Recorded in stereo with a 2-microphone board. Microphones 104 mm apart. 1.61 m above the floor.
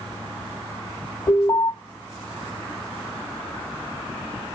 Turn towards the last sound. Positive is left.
turn(degrees=30)  # may be behind; listen again after turning